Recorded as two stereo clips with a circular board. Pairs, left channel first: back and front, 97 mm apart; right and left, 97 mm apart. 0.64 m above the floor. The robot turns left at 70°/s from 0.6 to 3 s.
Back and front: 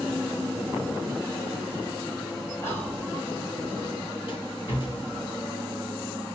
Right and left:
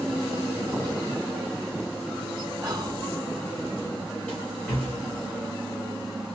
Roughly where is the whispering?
Behind left.